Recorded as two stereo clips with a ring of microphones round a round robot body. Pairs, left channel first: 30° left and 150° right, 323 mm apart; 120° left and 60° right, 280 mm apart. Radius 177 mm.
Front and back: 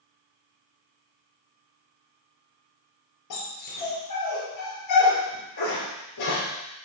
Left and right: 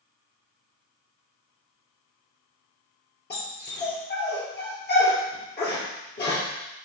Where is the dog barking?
65° left, 3.5 m.